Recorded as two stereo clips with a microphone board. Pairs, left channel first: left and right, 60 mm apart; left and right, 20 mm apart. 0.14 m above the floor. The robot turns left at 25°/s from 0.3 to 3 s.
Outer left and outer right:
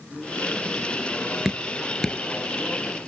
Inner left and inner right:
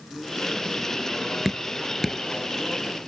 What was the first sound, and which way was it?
Dripping, 5° right (ahead or behind).